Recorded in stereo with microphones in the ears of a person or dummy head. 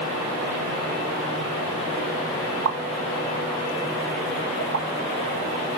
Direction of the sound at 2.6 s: 75° right (ahead or behind).